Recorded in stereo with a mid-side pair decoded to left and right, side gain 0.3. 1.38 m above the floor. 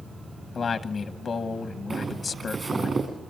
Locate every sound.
0.6 s a man speaking: 65° left, 1.0 m
1.9 s footsteps: 50° right, 8 m